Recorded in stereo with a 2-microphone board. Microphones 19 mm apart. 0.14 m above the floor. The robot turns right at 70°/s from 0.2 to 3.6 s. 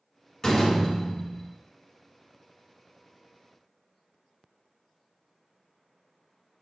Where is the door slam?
65° left, 1.2 m; by 1.5 s 140° left, 1.2 m.